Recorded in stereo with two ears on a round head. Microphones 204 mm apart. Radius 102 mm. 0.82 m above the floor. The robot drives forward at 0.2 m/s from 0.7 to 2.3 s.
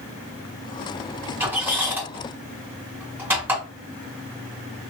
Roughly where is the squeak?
Centre.